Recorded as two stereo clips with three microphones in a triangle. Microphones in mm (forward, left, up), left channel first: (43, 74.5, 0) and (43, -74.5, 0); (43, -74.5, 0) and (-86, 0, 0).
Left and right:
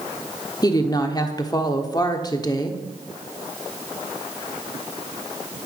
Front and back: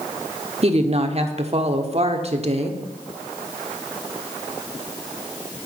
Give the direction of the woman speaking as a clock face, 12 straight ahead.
7 o'clock.